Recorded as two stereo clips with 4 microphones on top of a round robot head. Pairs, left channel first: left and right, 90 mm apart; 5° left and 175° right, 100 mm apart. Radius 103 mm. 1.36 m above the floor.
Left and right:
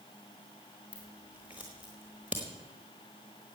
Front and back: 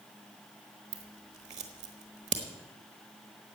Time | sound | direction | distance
0.9 | scissors | 170° right | 0.9 m